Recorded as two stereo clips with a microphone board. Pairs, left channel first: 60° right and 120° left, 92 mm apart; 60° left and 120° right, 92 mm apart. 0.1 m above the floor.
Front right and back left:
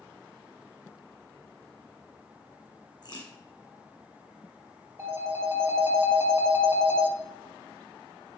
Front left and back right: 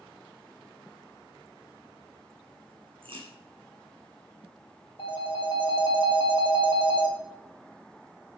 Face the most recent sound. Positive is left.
turn(degrees=60)